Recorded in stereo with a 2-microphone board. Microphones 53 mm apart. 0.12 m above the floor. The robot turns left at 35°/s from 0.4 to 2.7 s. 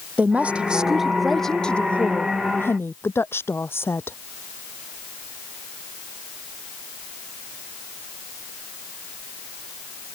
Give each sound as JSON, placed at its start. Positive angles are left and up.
{"t": 0.2, "sound": "a woman speaking", "azimuth_deg": -150}